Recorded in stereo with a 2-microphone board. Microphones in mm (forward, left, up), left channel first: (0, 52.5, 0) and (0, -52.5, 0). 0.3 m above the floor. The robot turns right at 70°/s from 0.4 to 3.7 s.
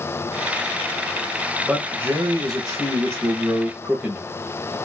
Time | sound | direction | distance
1.6 | a man speaking | 165° right | 1.2 m